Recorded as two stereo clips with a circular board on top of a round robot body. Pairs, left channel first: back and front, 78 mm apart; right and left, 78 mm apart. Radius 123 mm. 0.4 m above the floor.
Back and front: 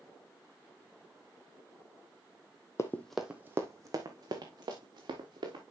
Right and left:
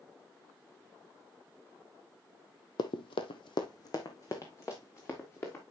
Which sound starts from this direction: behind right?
Running footsteps, at 2.8 s.